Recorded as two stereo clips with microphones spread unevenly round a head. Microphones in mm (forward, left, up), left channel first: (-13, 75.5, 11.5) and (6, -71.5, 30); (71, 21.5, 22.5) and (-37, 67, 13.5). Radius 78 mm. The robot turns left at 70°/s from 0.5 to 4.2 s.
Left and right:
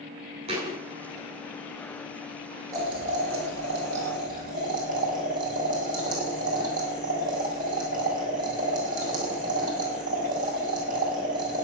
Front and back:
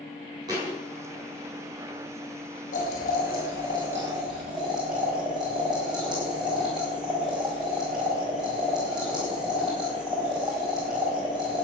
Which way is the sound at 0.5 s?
135° right.